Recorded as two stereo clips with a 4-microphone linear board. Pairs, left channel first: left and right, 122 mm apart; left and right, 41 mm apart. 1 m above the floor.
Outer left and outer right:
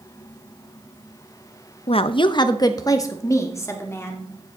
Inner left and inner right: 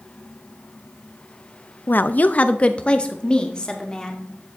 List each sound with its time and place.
1.9 s a woman speaking: 55° left (ahead or behind), 0.6 m; by 4.3 s 20° left (ahead or behind), 2.5 m